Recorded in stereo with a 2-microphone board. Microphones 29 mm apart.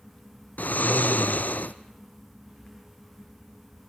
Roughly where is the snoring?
Left.